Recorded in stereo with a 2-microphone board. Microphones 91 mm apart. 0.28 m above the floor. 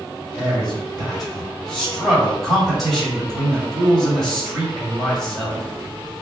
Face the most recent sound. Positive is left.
turn(degrees=0)  # may be behind; listen again after turning